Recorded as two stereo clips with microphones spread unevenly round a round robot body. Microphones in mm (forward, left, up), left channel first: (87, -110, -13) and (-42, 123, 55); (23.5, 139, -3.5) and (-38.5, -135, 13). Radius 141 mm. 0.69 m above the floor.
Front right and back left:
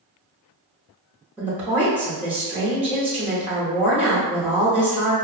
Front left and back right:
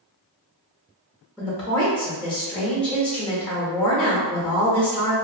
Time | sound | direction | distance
1.4 | a woman speaking | 5° left | 0.8 m